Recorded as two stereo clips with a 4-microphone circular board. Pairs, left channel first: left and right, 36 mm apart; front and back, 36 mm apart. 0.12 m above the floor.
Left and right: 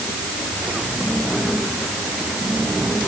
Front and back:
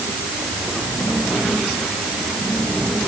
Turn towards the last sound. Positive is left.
No sound to turn to.